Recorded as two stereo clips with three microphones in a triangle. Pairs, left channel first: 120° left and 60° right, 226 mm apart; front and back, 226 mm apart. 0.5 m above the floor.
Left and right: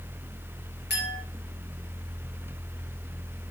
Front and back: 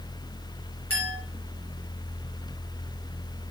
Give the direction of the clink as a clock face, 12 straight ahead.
7 o'clock.